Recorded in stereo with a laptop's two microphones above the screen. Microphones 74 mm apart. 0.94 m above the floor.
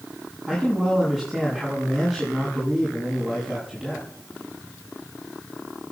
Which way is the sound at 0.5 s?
5° right (ahead or behind).